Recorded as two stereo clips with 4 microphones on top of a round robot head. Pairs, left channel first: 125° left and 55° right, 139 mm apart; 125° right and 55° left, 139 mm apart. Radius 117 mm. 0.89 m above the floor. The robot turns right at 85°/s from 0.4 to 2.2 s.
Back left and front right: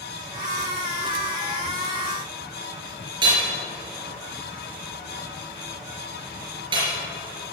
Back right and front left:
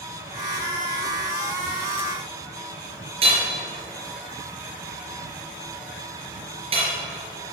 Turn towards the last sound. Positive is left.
turn(degrees=5)